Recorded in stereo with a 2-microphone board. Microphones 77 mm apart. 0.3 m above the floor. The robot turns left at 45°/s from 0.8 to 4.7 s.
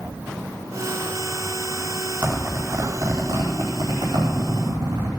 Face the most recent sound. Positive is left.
turn(degrees=-55)  # may be behind; listen again after turning